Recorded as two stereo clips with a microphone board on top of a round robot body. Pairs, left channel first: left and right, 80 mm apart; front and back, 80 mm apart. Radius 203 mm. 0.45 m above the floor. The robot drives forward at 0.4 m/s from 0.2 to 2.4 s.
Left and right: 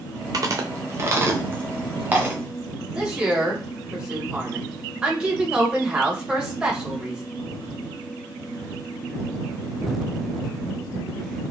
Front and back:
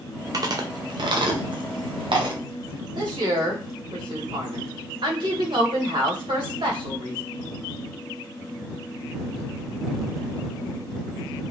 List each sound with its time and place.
0.3 s chewing: 135° right, 0.6 m; by 2.4 s 160° right, 1.3 m
3.0 s a woman speaking: 170° right, 2.5 m